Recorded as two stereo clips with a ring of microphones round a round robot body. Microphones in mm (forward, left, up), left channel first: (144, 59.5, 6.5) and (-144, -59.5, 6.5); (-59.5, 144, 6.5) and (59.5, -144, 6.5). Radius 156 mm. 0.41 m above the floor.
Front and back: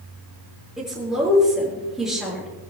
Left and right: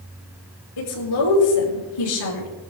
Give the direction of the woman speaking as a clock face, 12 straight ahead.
8 o'clock.